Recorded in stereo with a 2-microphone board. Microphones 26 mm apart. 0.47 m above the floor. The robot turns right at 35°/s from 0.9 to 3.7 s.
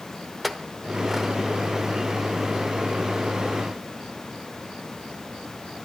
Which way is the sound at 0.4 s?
Centre (ahead or behind).